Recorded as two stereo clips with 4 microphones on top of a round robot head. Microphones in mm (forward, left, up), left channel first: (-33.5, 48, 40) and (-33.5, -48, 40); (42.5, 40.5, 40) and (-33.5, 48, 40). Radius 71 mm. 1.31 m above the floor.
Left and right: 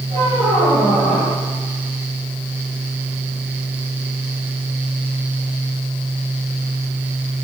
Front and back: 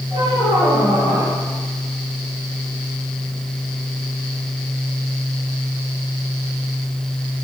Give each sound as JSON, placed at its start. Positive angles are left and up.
{"t": 0.1, "sound": "a squeak", "azimuth_deg": -45, "distance_m": 4.0}